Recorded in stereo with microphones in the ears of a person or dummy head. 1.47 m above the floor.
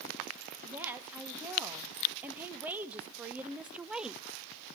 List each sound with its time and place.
0.6 s a woman speaking: 10° right (ahead or behind), 2.5 m; by 4.2 s 5° right (ahead or behind), 0.6 m